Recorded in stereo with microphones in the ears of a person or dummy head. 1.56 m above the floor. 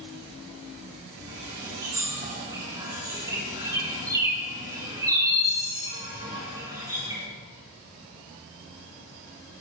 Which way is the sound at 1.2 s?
15° right (ahead or behind).